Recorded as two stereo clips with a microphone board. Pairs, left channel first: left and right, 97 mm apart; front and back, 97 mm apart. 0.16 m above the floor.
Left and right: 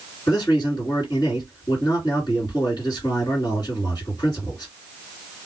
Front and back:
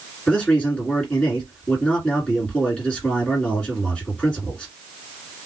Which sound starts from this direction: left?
A man speaking, at 0.3 s.